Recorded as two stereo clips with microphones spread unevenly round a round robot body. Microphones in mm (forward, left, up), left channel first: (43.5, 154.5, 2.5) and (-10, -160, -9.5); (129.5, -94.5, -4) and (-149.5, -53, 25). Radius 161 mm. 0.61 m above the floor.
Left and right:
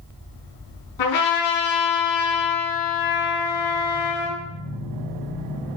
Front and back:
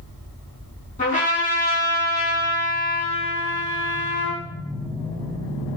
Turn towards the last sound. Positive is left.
turn(degrees=60)